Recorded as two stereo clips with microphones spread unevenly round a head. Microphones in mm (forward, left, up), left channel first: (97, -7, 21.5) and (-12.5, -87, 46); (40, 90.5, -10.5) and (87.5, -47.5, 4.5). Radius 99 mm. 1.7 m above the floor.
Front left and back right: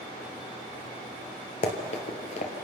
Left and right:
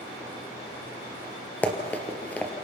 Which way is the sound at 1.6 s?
25° left.